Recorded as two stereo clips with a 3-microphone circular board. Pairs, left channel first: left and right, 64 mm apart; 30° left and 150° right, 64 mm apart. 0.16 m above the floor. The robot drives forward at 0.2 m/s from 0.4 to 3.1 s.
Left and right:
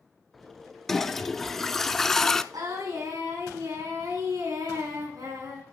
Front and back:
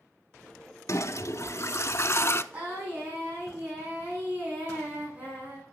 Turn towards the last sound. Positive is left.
turn(degrees=-90)